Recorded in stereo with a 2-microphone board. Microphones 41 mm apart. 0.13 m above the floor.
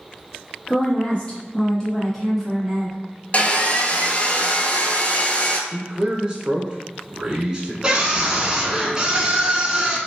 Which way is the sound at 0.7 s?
35° left (ahead or behind).